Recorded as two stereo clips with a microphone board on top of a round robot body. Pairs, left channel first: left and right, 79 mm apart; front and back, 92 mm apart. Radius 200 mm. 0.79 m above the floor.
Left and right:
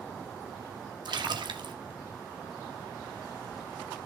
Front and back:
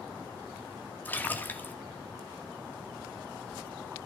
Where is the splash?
70° right, 2 m.